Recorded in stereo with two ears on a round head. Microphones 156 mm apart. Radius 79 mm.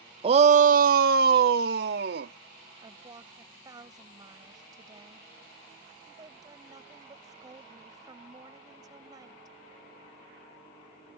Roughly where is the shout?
Right.